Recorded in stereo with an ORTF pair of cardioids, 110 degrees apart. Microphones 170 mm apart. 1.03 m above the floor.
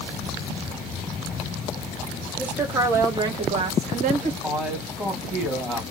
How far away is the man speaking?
About 1.8 m.